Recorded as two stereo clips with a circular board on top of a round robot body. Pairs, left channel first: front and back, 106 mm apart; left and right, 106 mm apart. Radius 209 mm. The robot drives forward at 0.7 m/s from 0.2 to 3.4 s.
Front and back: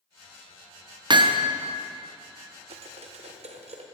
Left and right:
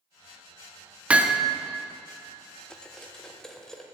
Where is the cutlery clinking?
170° left, 0.7 m; by 3.8 s 175° left, 1.2 m.